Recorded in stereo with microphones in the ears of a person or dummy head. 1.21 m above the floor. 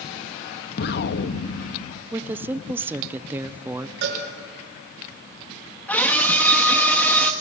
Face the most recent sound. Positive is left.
turn(degrees=5)  # may be behind; listen again after turning